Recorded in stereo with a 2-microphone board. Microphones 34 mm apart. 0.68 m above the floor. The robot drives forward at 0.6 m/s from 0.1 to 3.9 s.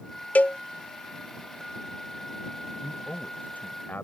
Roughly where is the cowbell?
Left.